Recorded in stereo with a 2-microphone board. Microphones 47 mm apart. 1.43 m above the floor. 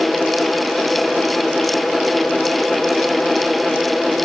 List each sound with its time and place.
Only background noise.